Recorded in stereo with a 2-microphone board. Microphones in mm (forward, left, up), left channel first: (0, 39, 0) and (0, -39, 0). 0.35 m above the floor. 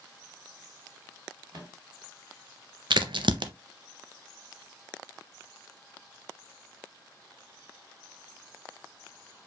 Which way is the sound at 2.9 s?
85° right.